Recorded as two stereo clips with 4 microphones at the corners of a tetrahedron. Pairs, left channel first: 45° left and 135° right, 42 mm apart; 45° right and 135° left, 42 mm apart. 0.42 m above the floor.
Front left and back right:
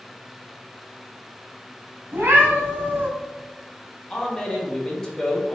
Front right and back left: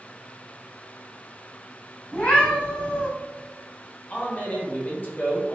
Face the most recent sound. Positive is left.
turn(degrees=-20)